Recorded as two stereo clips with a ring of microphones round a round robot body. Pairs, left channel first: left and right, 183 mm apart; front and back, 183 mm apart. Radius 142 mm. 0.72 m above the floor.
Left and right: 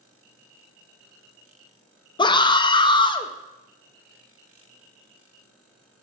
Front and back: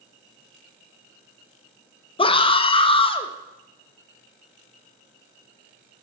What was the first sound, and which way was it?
A scream, 40° left.